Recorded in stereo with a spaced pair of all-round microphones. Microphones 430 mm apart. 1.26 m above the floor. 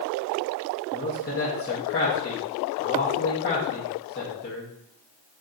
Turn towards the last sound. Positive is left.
turn(degrees=25)  # may be behind; listen again after turning